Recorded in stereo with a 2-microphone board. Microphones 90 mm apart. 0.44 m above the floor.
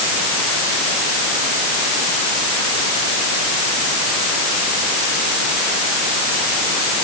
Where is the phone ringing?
No phone ringing in this recording.